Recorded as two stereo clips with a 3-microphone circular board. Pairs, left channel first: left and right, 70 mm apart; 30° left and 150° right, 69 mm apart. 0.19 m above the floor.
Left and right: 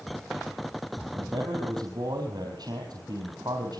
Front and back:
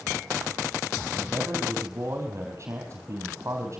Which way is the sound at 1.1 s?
100° right.